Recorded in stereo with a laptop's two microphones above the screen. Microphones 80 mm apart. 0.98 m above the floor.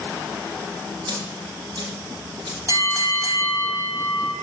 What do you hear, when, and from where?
1.1 s a dropped coin: 65° right (ahead or behind), 8 m
2.7 s a bell: 40° right (ahead or behind), 4 m